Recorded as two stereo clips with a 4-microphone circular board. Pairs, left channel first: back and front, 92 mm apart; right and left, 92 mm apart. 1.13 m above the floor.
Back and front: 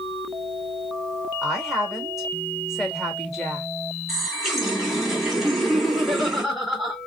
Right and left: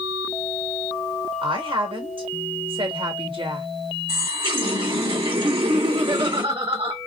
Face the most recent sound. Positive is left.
turn(degrees=85)